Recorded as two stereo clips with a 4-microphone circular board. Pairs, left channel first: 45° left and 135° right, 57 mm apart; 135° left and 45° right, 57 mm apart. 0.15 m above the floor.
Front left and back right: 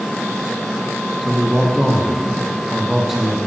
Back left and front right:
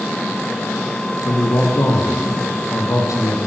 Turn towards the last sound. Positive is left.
turn(degrees=140)